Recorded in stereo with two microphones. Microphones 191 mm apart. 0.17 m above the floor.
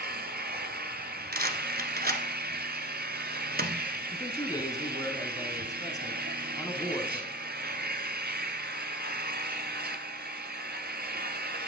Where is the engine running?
60° right (ahead or behind), 1.0 m.